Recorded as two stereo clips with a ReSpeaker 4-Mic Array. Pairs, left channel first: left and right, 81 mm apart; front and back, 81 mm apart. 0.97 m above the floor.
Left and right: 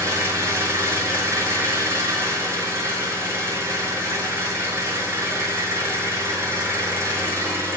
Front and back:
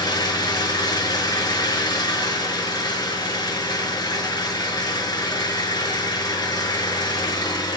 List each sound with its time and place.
0.0 s an engine running: 35° right, 6 m